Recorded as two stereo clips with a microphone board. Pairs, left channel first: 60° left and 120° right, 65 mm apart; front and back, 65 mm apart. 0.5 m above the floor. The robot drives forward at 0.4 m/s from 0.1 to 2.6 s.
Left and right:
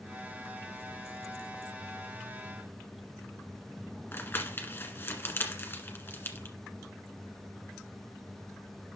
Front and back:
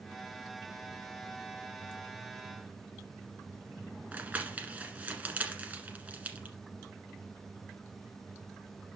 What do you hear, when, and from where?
4.1 s crumpling: 115° left, 1.6 m